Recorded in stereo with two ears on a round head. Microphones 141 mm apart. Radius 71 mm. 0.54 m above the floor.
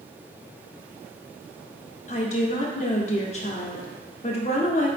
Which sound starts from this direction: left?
A woman speaking, at 2.1 s.